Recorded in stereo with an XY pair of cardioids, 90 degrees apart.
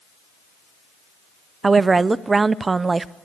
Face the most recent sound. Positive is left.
turn(degrees=-35)